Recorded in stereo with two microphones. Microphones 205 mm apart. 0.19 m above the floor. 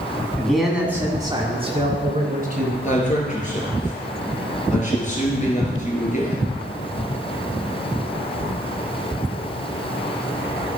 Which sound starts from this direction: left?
A man speaking, at 2.8 s.